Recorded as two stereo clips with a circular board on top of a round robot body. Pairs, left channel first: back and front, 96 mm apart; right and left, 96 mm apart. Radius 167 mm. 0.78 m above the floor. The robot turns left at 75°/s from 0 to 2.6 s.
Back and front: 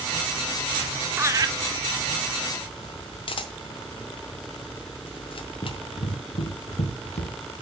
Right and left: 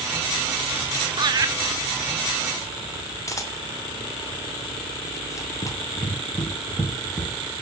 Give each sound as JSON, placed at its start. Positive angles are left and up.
{"t": 1.2, "sound": "laughter", "azimuth_deg": 65, "distance_m": 1.4}
{"t": 3.3, "sound": "a camera shutter", "azimuth_deg": -150, "distance_m": 0.8}
{"t": 5.6, "sound": "running footsteps", "azimuth_deg": -135, "distance_m": 1.5}